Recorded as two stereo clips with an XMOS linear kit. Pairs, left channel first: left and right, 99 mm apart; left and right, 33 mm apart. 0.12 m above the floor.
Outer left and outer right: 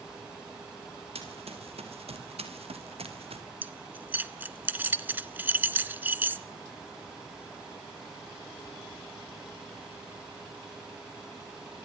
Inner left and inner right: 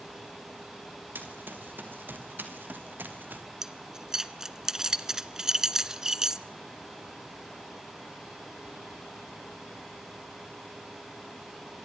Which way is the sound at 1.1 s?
90° right.